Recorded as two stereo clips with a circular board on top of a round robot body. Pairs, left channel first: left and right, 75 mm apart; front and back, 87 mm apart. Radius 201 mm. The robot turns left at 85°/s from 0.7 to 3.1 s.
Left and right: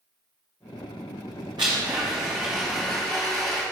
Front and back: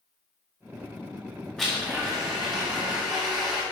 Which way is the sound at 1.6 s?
80° right.